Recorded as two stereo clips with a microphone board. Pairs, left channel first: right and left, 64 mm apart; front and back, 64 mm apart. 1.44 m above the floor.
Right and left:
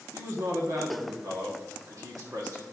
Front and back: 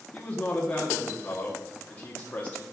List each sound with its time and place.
0.1 s a man speaking: 70° left, 1.5 m